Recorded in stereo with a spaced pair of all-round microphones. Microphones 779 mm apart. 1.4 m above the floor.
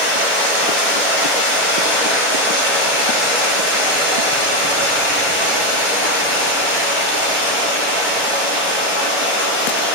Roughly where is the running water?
Centre.